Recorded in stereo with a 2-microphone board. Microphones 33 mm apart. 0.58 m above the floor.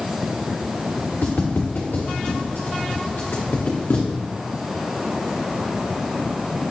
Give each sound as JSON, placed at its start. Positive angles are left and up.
{"t": 1.2, "sound": "footsteps", "side_deg": 70, "distance_m": 3.0}